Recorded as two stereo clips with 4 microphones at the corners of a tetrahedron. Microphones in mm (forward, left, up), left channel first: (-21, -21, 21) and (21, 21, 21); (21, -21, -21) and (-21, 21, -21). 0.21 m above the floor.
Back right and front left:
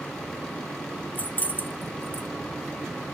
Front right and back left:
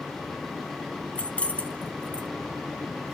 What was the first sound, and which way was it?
Keys jangling, 100° right.